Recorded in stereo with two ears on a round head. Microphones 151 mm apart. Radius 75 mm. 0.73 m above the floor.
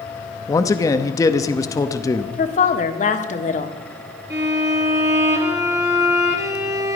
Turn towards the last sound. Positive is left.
turn(degrees=-15)  # may be behind; listen again after turning